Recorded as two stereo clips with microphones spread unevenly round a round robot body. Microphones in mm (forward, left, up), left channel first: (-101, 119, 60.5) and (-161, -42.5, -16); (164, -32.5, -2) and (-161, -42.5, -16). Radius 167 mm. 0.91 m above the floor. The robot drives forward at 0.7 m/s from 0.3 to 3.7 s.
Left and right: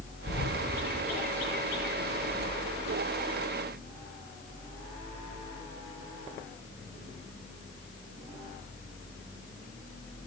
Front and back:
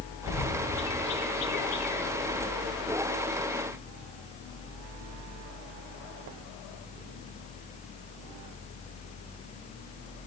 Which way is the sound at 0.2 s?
50° left.